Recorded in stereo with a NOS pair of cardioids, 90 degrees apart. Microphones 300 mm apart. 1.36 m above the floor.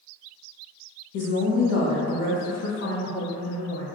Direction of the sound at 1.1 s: 70° left.